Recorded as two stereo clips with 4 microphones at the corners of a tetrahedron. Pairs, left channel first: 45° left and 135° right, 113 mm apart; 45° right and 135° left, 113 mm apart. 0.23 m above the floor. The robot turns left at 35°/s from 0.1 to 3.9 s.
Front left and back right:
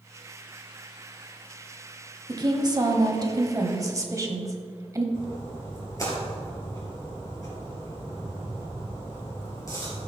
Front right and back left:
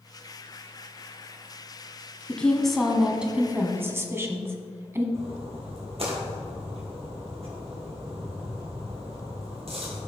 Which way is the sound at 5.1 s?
105° left.